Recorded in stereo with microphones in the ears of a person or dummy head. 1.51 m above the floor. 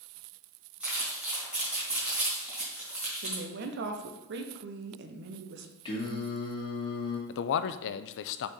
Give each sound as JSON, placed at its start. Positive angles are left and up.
{"t": 0.8, "sound": "crumpling", "side_deg": -5, "distance_m": 3.5}
{"t": 3.2, "sound": "a woman speaking", "side_deg": -55, "distance_m": 1.0}
{"t": 5.8, "sound": "singing", "side_deg": 25, "distance_m": 2.0}
{"t": 7.3, "sound": "a man speaking", "side_deg": 60, "distance_m": 0.6}